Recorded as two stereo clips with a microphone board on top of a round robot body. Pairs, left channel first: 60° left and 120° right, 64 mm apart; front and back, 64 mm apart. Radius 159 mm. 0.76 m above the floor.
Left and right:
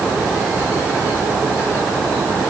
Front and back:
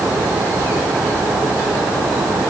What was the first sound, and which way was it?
Only background noise.